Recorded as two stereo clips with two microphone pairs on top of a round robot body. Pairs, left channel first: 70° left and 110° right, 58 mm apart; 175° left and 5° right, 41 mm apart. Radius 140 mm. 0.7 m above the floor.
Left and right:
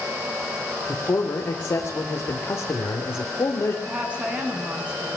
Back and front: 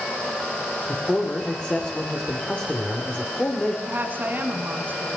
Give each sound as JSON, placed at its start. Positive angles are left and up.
{"t": 0.9, "sound": "a man speaking", "azimuth_deg": 110, "distance_m": 3.0}
{"t": 3.9, "sound": "a woman speaking", "azimuth_deg": -45, "distance_m": 7.5}